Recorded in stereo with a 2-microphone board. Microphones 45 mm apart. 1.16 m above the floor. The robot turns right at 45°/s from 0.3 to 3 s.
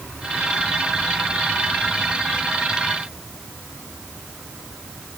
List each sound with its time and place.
Only background noise.